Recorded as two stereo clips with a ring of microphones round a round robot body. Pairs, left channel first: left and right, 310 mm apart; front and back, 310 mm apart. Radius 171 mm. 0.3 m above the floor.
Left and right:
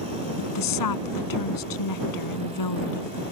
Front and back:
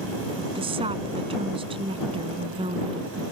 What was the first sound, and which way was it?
A woman speaking, 105° left.